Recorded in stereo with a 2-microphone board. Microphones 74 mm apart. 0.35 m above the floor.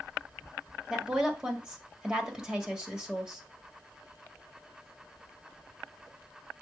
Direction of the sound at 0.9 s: 10° right (ahead or behind).